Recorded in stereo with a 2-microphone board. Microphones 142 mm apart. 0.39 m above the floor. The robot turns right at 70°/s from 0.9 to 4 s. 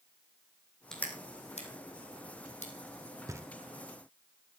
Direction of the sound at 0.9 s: 5° left (ahead or behind).